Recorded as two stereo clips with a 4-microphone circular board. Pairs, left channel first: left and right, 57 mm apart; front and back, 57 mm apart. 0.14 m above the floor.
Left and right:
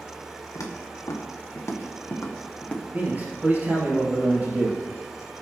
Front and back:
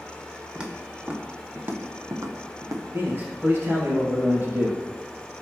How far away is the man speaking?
About 3 m.